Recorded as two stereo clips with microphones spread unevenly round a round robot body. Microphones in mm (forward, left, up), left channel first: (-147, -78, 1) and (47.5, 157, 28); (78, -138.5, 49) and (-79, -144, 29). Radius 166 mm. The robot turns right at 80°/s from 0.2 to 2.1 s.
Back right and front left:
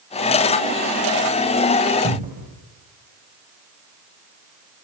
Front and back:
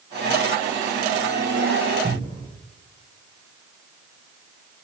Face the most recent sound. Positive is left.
turn(degrees=120)